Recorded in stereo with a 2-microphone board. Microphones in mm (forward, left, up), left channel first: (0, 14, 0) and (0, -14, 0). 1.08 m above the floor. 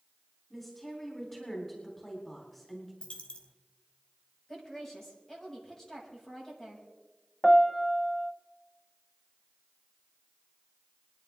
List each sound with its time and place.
0.5 s a woman speaking: 15° left (ahead or behind), 3.5 m
3.0 s a dropped coin: 35° left (ahead or behind), 1.5 m
4.5 s a woman speaking: 15° left (ahead or behind), 6 m
7.4 s a piano: 10° left (ahead or behind), 0.7 m